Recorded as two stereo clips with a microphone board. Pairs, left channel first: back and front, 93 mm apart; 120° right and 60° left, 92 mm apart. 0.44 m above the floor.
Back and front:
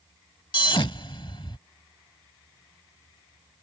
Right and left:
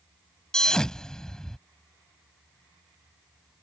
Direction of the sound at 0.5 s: 160° left.